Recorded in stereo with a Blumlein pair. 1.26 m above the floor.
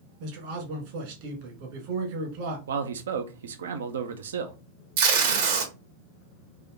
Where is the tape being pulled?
55° right, 1.3 m.